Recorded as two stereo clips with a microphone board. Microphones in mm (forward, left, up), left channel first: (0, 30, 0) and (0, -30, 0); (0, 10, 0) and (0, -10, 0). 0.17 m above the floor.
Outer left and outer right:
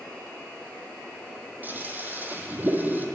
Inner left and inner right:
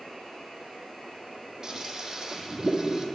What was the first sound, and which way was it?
A toilet flushing, 35° right (ahead or behind).